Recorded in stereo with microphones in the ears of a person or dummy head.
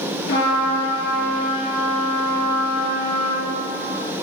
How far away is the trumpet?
About 4 m.